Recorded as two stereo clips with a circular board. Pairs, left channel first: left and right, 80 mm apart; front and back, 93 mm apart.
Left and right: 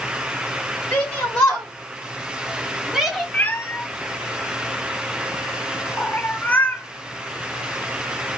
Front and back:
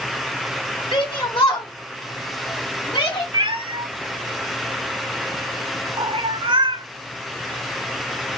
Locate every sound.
0.9 s a shout: 30° left, 2.5 m; by 3.2 s 5° right, 2.0 m
3.3 s a cat meowing: 160° left, 1.0 m